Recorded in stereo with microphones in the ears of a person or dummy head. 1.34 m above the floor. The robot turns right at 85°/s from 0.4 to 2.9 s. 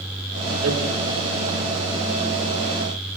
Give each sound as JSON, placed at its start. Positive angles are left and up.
{"t": 0.6, "sound": "hammering", "side_deg": -65, "distance_m": 3.0}